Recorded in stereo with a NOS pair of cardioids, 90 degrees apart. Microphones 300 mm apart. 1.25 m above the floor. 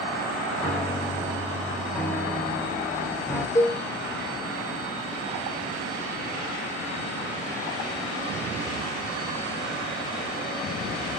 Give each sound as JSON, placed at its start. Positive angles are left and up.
{"t": 0.6, "sound": "a piano", "azimuth_deg": 5, "distance_m": 0.7}
{"t": 3.5, "sound": "a cowbell", "azimuth_deg": 15, "distance_m": 0.8}